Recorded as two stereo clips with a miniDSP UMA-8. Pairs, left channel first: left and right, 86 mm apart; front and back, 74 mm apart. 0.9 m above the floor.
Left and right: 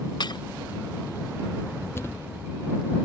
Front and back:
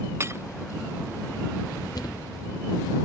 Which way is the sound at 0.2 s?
125° left.